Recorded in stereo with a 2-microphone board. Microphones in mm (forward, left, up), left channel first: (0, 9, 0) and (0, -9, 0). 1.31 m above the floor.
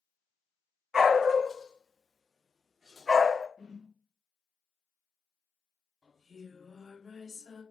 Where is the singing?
25° right (ahead or behind), 1.4 m.